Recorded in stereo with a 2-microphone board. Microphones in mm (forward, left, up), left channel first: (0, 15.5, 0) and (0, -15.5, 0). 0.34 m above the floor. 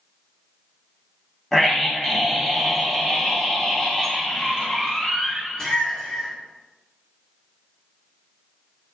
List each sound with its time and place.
1.5 s a scream: 10° left (ahead or behind), 2.5 m; by 6.3 s 20° left (ahead or behind), 5 m